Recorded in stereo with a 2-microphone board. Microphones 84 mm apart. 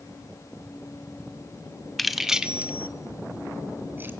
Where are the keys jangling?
5° left (ahead or behind), 1.2 m; by 4.1 s 25° right (ahead or behind), 1.9 m.